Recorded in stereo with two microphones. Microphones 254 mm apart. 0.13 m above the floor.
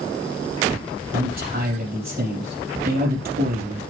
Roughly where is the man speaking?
Right.